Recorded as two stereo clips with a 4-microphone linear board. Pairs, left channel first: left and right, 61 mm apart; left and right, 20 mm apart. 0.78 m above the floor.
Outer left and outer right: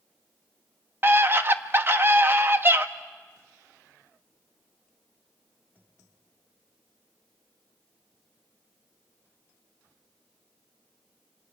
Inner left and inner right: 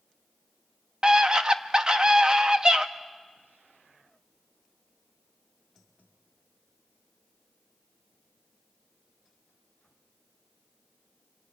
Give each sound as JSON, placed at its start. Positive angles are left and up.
{"t": 1.0, "sound": "a scream", "side_deg": -40, "distance_m": 1.0}